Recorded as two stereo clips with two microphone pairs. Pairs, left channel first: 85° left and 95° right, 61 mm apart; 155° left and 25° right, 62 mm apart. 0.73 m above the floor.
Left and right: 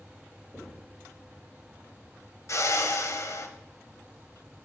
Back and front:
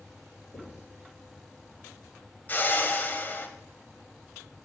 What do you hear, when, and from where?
0.5 s knocking: 170° left, 2.5 m
2.5 s a whoosh: 105° left, 0.8 m